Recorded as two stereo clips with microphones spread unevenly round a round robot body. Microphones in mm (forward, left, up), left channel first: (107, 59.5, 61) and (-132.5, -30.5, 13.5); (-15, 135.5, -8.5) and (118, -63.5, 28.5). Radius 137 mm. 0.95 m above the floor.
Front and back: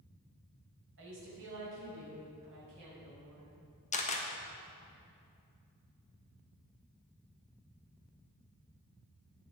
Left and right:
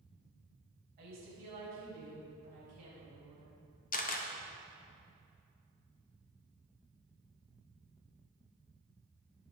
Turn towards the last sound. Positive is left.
turn(degrees=85)